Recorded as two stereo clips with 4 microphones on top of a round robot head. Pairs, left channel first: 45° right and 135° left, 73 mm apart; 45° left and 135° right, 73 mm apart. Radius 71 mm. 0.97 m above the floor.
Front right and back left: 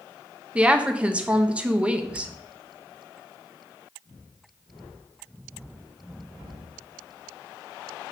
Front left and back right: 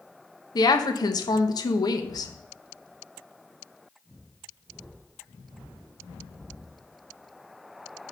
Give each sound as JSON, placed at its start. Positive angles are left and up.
{"t": 0.6, "sound": "a woman speaking", "azimuth_deg": 65, "distance_m": 0.8}